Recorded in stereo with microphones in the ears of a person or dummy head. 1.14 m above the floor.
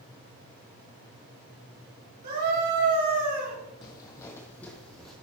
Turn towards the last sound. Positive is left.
turn(degrees=0)  # may be behind; listen again after turning